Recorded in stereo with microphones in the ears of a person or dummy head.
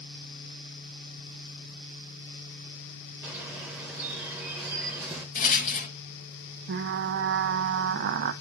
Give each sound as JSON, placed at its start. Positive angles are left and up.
{"t": 3.2, "sound": "a bird", "side_deg": -5, "distance_m": 1.8}
{"t": 5.3, "sound": "a rattle", "side_deg": 50, "distance_m": 1.8}
{"t": 6.7, "sound": "frying", "side_deg": -65, "distance_m": 0.8}